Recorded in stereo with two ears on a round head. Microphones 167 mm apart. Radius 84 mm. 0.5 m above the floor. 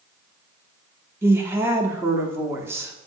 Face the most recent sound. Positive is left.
turn(degrees=-15)  # may be behind; listen again after turning